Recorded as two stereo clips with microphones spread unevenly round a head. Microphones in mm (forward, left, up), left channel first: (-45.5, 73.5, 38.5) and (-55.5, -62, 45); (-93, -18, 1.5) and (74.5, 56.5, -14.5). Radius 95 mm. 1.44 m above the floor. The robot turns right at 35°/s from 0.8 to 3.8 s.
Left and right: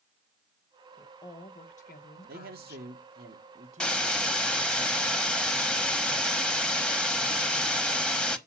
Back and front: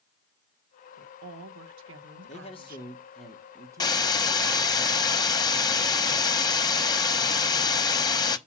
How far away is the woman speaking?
About 1.3 m.